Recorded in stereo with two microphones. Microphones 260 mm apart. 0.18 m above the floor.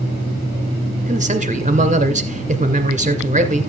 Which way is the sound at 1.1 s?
30° right (ahead or behind).